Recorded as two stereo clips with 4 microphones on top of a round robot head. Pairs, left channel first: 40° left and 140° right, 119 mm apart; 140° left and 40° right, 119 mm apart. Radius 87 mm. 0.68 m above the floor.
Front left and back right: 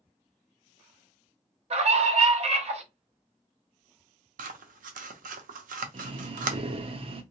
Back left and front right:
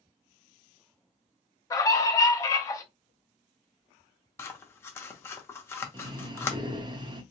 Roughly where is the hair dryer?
I don't hear a hair dryer.